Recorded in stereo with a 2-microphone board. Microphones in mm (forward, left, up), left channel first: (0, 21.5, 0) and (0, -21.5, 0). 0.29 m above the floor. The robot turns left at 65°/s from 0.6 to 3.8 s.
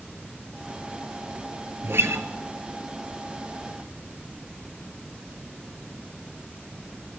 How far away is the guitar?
About 0.9 m.